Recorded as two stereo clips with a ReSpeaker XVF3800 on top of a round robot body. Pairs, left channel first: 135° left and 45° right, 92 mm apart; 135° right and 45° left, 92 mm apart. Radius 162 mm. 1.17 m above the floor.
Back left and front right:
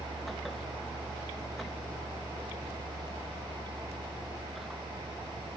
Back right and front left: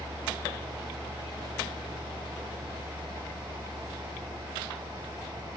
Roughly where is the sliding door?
I don't hear a sliding door.